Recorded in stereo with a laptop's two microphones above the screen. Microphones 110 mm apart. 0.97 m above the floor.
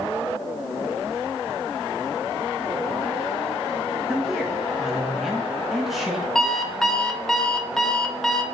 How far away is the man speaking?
About 1.3 m.